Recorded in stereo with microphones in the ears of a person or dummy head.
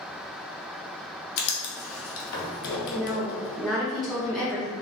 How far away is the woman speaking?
About 1.4 m.